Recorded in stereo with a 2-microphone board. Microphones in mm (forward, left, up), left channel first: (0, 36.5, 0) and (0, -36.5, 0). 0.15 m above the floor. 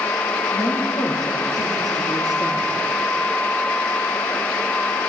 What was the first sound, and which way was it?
A woman speaking, 70° left (ahead or behind).